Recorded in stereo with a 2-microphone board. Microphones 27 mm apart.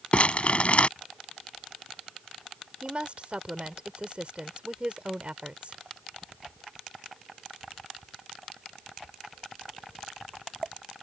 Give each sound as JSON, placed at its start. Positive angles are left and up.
{"t": 0.1, "sound": "crumpling", "side_deg": 50}
{"t": 2.8, "sound": "a woman speaking", "side_deg": -45}